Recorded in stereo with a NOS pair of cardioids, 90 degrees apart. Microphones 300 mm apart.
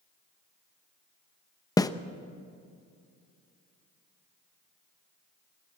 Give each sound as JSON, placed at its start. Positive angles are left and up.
{"t": 1.8, "sound": "a snare drum", "azimuth_deg": 10, "distance_m": 0.8}